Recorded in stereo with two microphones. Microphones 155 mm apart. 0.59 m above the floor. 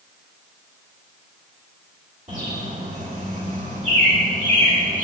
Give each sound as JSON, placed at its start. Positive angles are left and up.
{"t": 2.3, "sound": "a bird", "side_deg": -50, "distance_m": 1.8}